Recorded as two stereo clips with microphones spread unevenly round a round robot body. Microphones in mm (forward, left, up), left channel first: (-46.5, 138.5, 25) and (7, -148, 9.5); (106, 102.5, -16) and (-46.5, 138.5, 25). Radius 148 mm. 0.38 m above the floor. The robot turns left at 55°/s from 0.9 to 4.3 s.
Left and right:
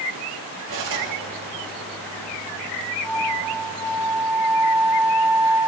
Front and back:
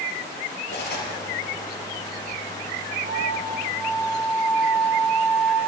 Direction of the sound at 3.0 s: 60° right.